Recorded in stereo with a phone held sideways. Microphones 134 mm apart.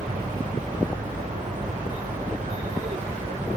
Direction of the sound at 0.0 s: 75° right (ahead or behind).